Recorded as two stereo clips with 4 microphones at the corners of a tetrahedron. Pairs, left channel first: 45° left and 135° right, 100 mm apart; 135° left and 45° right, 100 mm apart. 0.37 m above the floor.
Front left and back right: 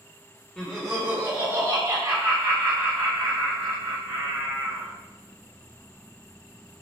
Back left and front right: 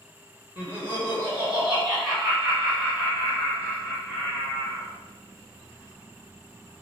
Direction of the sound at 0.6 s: 25° right.